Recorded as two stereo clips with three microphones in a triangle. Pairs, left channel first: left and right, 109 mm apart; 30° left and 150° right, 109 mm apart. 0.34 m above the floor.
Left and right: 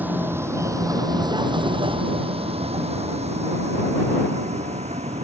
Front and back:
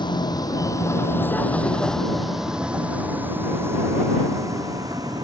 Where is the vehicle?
15° right; by 5.2 s 95° right.